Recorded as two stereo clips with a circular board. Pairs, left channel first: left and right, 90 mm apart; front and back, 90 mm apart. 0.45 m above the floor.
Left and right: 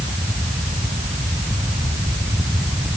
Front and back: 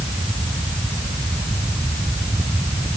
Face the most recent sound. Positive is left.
No sound to turn to.